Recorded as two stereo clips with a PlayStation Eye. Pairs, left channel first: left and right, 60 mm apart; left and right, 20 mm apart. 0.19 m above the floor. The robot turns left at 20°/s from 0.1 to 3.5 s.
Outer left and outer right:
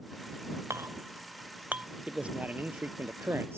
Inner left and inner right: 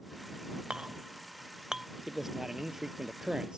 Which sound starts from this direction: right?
A clink, at 0.7 s.